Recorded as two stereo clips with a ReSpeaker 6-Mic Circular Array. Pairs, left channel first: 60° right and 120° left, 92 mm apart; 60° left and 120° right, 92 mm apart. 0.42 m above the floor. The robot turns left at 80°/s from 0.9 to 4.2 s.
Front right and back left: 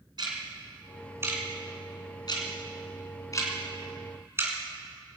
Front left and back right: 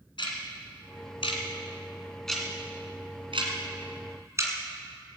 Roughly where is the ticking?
Left.